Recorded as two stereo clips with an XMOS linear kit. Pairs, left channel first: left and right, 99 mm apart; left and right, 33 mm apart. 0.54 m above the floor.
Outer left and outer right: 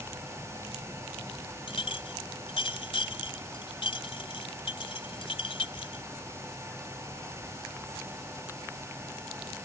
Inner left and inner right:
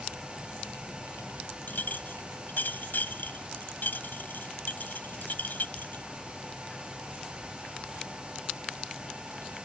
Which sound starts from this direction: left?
A clink, at 1.7 s.